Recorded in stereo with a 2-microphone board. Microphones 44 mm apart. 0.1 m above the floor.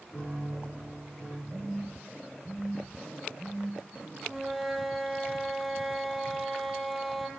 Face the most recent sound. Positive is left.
turn(degrees=0)  # may be behind; listen again after turning